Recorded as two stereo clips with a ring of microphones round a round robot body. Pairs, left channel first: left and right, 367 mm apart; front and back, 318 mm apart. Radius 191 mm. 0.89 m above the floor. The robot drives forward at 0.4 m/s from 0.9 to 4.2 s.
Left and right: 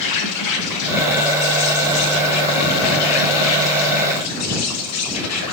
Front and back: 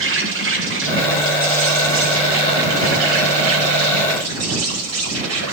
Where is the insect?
130° left, 5.5 m; by 5.5 s 140° left, 6.5 m.